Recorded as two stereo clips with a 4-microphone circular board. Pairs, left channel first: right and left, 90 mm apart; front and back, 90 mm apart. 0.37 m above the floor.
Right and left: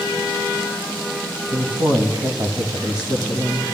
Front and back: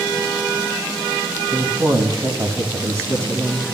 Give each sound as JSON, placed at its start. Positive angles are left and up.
{"t": 1.5, "sound": "a woman speaking", "azimuth_deg": 130, "distance_m": 2.5}